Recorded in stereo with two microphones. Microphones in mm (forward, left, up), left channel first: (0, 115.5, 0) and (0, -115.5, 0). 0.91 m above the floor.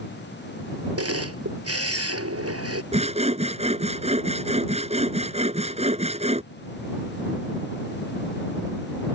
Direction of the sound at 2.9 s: 25° right (ahead or behind).